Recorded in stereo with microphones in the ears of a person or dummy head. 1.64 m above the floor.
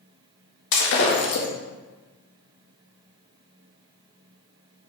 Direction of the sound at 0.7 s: 65° left (ahead or behind).